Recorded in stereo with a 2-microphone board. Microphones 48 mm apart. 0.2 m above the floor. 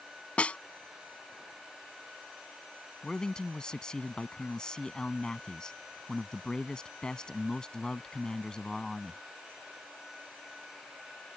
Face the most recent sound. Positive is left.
turn(degrees=15)  # may be behind; listen again after turning